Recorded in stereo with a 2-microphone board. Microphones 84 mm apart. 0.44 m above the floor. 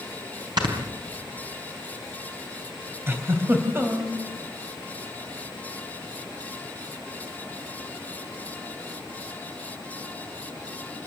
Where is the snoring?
60° right (ahead or behind), 4 m.